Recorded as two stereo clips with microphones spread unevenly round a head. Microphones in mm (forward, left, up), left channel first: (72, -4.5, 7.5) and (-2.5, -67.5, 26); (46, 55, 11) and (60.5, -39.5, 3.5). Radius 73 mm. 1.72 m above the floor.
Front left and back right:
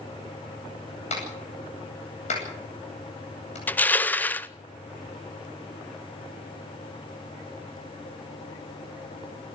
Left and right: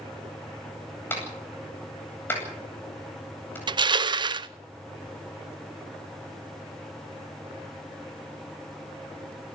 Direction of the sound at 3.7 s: 35° right.